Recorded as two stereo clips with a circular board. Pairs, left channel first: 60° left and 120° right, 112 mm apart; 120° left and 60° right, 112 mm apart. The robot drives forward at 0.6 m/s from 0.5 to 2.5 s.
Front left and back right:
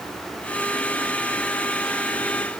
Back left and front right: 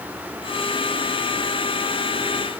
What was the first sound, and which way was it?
Only background noise.